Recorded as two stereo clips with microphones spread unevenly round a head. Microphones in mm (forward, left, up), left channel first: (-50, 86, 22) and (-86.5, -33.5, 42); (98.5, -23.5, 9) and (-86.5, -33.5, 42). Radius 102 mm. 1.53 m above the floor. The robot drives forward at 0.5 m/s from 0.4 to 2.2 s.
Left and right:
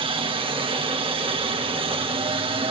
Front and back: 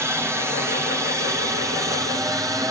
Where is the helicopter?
95° right; by 2.7 s 100° right.